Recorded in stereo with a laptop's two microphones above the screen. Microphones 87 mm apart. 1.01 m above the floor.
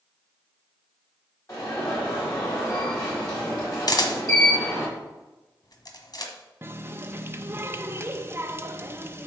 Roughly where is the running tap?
Right.